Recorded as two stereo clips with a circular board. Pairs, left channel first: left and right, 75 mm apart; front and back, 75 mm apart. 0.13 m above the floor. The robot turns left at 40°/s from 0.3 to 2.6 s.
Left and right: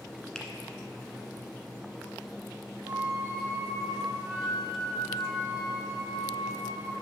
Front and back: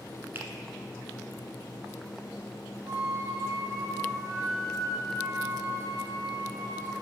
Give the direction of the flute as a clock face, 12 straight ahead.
5 o'clock.